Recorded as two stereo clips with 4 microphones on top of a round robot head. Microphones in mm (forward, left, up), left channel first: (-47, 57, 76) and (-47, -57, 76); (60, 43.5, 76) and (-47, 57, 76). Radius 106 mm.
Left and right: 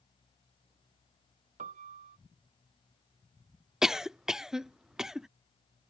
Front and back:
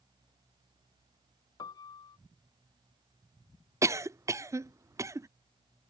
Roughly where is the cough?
Behind.